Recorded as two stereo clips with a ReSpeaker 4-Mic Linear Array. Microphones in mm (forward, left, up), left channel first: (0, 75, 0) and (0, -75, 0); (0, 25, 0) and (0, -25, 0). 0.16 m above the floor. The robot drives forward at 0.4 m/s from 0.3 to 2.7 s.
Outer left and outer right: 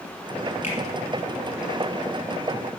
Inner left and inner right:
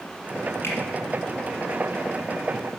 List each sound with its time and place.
0.6 s a finger snap: 50° left (ahead or behind), 3.5 m